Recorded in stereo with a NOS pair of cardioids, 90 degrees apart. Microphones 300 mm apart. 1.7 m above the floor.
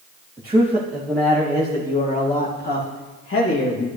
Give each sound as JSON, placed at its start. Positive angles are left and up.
{"t": 0.4, "sound": "a man speaking", "azimuth_deg": -15, "distance_m": 2.5}